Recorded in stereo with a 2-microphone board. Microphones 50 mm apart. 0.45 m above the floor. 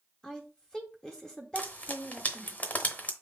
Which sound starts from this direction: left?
Frying, at 1.6 s.